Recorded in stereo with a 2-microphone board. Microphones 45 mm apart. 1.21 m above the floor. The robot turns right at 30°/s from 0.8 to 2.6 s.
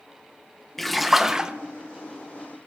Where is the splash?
5° left (ahead or behind), 0.7 m; by 1.5 s 15° right (ahead or behind), 0.7 m.